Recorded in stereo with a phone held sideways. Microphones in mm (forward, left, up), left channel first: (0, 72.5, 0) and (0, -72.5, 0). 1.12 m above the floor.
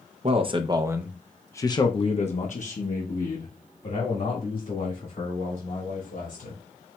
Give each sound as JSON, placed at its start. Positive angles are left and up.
{"t": 0.2, "sound": "a man speaking", "side_deg": -45, "distance_m": 0.7}